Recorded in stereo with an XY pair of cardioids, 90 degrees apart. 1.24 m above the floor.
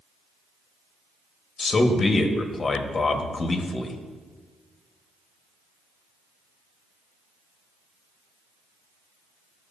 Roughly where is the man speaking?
Ahead left.